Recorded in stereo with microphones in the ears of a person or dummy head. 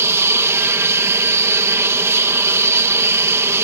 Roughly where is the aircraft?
Centre.